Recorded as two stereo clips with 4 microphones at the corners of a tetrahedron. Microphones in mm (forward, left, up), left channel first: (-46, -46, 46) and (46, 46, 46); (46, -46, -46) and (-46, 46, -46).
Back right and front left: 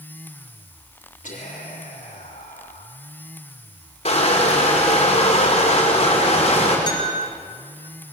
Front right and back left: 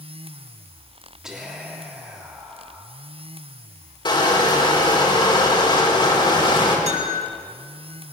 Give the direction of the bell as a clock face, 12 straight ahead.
6 o'clock.